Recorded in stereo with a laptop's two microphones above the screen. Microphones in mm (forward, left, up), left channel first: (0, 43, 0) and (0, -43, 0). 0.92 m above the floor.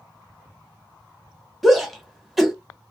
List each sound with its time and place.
1.6 s a shout: centre (ahead or behind), 1.1 m